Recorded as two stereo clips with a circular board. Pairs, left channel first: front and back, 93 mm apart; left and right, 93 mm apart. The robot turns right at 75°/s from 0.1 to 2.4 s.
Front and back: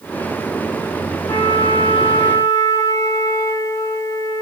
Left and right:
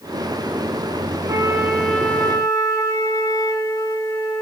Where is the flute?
40° right, 1.3 m; by 4.4 s 45° left, 1.3 m.